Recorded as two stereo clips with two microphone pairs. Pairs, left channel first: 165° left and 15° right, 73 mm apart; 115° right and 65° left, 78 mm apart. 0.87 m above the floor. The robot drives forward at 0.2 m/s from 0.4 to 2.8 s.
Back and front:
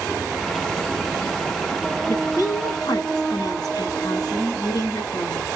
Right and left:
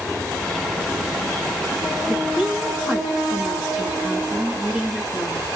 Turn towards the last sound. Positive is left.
turn(degrees=140)